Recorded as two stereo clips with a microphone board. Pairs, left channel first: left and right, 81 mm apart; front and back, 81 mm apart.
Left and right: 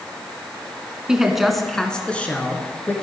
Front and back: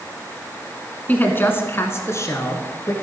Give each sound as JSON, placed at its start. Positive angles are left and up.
{"t": 1.1, "sound": "a woman speaking", "azimuth_deg": -25, "distance_m": 1.2}